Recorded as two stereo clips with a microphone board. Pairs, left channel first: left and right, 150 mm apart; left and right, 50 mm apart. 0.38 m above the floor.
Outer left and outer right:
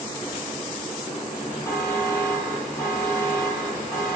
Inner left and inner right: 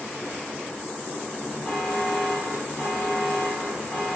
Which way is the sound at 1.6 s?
20° left (ahead or behind).